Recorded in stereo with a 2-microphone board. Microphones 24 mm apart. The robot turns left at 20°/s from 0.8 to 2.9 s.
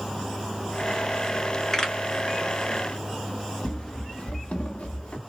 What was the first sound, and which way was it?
A pop, 30° left (ahead or behind).